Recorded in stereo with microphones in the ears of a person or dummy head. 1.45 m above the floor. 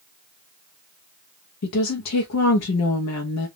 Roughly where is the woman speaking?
Left.